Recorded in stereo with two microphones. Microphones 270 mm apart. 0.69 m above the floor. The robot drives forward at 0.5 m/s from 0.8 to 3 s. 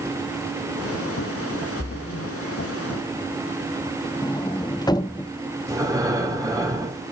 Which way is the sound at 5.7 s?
15° right (ahead or behind).